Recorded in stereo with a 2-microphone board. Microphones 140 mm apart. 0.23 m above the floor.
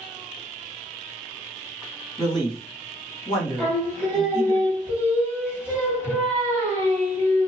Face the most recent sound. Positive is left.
turn(degrees=-10)  # may be behind; listen again after turning